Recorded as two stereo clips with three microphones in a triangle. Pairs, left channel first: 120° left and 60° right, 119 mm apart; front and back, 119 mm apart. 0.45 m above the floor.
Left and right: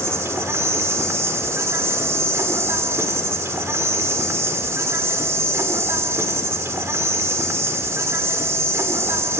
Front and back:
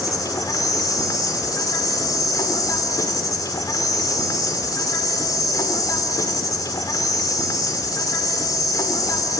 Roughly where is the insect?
Ahead.